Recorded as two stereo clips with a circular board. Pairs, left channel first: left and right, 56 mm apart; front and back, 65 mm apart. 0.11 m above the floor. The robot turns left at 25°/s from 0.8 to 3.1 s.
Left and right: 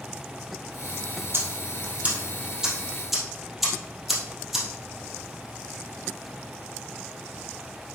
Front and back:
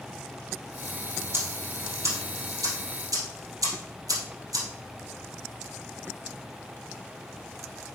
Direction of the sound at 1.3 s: 130° right.